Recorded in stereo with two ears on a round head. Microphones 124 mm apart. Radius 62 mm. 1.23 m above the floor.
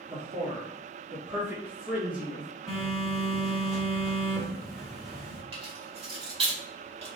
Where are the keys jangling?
45° right (ahead or behind), 2 m.